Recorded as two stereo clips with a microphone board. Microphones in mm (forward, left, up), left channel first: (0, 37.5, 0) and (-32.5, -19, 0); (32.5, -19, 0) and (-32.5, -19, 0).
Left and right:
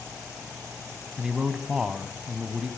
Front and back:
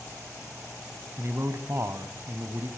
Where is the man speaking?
165° left, 1.6 m.